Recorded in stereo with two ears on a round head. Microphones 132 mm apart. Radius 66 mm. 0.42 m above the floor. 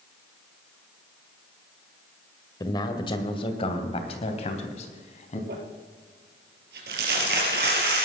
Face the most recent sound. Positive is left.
turn(degrees=-85)